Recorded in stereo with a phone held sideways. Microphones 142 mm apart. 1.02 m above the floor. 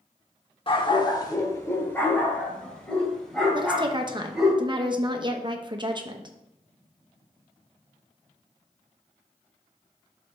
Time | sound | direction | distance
0.7 | a dog barking | 40° left (ahead or behind) | 0.8 m
3.5 | a woman speaking | 35° right (ahead or behind) | 0.8 m